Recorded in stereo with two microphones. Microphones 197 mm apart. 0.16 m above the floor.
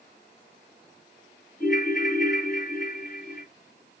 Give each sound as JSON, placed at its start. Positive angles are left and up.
{"t": 1.6, "sound": "a ringtone", "side_deg": 45, "distance_m": 0.9}